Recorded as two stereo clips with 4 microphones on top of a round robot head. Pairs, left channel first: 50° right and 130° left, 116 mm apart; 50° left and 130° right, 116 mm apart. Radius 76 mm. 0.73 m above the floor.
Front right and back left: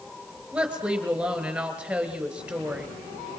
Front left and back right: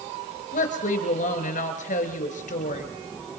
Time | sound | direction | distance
0.5 | a woman speaking | 50° left | 4 m